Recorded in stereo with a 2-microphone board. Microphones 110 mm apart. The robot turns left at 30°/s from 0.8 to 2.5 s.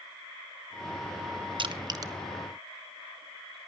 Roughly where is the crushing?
Right.